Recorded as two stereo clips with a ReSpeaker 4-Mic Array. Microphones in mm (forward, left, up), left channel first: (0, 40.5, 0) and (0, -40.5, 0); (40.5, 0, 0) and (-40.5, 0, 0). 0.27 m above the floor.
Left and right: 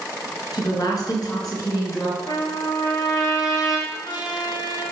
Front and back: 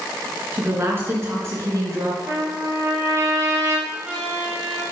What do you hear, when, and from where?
0.5 s a woman speaking: 115° left, 3 m; by 2.2 s 135° left, 3 m
2.3 s a trumpet: 130° left, 2.5 m
3.9 s a trumpet: 110° left, 3.5 m